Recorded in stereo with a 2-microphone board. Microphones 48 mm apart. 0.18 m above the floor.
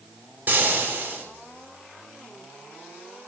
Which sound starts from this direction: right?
Frying, at 0.5 s.